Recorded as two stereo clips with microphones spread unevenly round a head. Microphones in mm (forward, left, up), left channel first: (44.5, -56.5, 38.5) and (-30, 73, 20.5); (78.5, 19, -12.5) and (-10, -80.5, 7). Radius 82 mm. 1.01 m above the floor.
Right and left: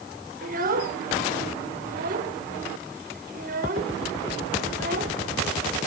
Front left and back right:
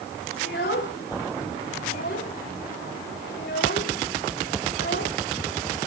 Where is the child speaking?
85° left, 2 m.